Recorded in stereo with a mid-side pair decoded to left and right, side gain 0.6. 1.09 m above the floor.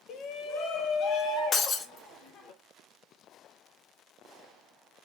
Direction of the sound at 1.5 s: 40° left.